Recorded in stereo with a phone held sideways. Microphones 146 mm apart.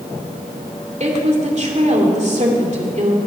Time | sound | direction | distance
1.0 | a woman speaking | 55° right (ahead or behind) | 2.5 m